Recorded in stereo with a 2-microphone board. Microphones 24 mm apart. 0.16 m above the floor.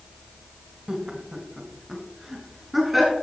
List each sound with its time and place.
0.9 s laughter: 25° right (ahead or behind), 1.2 m; by 3.1 s 5° right (ahead or behind), 2.5 m